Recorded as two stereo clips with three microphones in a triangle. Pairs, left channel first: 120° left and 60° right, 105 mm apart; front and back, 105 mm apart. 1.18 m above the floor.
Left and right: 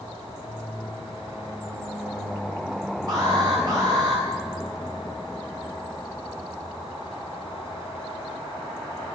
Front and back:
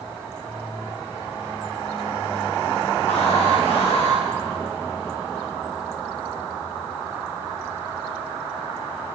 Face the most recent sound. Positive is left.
turn(degrees=-10)